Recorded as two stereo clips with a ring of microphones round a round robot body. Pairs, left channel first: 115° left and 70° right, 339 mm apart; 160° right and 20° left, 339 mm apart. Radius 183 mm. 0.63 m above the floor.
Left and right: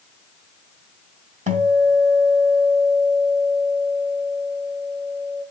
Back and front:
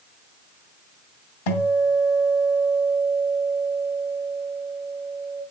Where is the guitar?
140° right, 2.5 m.